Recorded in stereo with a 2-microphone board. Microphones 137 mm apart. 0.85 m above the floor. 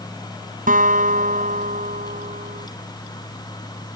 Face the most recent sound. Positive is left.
turn(degrees=-80)